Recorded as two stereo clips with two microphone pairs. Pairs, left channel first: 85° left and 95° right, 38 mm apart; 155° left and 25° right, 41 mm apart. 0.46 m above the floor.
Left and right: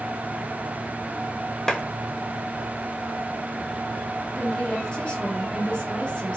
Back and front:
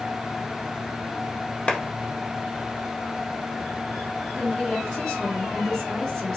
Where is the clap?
135° left, 0.7 m.